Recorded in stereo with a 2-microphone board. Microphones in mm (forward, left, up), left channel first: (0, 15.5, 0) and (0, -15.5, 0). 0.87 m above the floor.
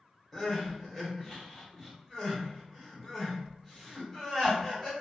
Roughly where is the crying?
Centre.